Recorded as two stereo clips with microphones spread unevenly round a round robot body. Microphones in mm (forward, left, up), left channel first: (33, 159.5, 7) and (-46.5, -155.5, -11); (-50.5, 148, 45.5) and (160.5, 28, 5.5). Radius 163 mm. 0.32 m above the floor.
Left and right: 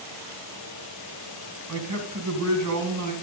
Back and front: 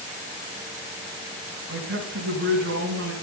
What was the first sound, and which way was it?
A man speaking, 70° right.